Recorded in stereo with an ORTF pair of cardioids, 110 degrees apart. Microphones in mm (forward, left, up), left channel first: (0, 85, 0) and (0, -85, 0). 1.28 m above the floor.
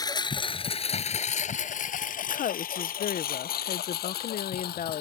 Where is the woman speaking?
50° left.